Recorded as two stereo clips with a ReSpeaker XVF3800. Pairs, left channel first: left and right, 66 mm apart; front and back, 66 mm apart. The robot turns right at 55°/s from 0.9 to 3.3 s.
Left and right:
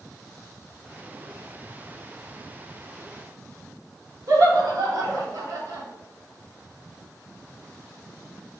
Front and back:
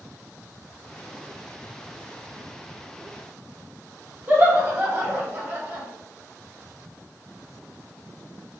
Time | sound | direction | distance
4.3 | laughter | 115° right | 2 m